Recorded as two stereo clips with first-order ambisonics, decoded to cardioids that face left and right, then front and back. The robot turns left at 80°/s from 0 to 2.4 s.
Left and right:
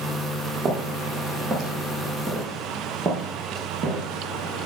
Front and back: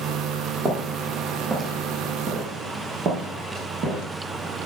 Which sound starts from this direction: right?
Footsteps, at 0.7 s.